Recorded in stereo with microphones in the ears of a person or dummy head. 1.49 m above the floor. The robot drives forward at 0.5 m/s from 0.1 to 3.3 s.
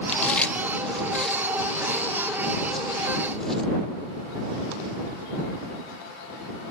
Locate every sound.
0.1 s chewing: 10° left (ahead or behind); by 3.7 s 5° left (ahead or behind)